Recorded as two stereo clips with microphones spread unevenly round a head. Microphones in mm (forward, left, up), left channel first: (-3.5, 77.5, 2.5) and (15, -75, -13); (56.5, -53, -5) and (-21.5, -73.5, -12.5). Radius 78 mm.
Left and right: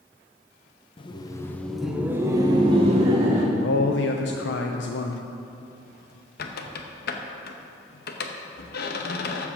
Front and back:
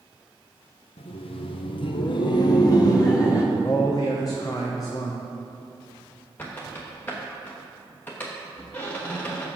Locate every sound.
1.0 s laughter: 40° left, 0.8 m; by 3.5 s 40° right, 1.2 m
3.5 s a man speaking: 85° left, 0.7 m
6.4 s a squeak: 90° left, 0.9 m